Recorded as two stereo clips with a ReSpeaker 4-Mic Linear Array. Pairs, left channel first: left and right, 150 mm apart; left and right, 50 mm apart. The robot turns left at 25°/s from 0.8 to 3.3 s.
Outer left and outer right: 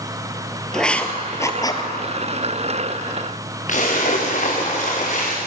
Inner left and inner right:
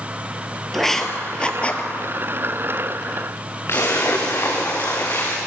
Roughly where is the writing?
Centre.